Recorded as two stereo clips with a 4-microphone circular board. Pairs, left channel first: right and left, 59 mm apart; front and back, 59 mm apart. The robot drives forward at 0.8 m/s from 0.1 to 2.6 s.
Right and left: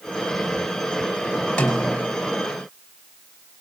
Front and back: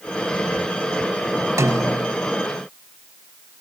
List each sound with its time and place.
1.6 s a snare drum: 165° right, 4 m